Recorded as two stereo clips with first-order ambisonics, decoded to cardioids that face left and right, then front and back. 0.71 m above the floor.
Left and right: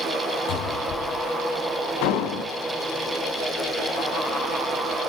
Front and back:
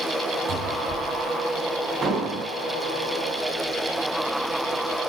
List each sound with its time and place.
0.5 s a cupboard door: 125° left, 4.5 m
2.0 s an explosion: 110° left, 3 m